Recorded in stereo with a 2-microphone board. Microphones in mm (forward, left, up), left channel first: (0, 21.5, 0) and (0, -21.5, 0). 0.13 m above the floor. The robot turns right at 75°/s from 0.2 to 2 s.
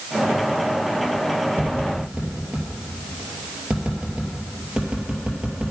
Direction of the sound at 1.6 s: 50° right (ahead or behind).